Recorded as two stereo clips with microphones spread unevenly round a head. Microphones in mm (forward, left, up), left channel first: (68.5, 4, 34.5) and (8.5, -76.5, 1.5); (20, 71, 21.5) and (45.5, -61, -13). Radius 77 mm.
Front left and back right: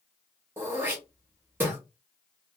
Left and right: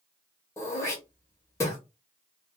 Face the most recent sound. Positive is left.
turn(degrees=180)